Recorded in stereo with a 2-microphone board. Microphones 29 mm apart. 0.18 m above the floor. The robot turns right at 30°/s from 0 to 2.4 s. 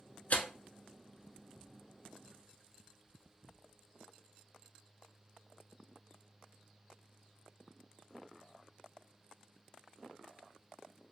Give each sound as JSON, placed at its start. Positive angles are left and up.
{"t": 0.3, "sound": "tearing paper", "side_deg": 55, "distance_m": 0.6}